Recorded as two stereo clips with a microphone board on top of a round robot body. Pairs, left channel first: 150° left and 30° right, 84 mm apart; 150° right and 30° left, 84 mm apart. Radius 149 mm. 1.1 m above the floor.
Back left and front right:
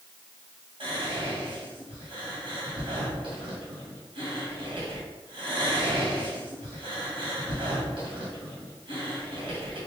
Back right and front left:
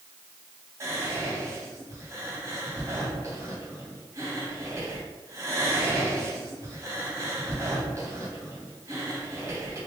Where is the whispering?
30° right, 1.8 m.